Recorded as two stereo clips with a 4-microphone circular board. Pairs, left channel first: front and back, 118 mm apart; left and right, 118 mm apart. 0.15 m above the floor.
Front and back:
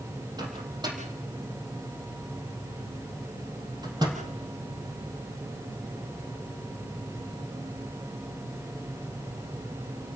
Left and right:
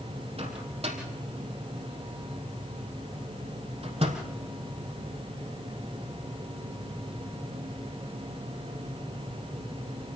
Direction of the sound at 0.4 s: 125° right.